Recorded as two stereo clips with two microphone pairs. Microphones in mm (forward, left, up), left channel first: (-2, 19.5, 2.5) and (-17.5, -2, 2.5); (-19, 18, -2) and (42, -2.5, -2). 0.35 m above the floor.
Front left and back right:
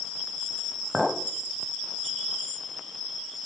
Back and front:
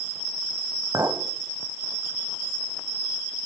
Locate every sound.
0.9 s a clink: 45° right, 1.4 m